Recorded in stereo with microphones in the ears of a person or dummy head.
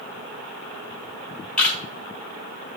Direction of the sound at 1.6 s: 10° left (ahead or behind).